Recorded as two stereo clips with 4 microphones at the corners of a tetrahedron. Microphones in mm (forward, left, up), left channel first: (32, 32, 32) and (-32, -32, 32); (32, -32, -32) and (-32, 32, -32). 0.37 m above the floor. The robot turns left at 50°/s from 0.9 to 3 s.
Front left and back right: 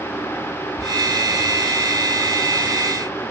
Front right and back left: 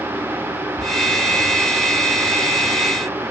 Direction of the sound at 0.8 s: 130° right.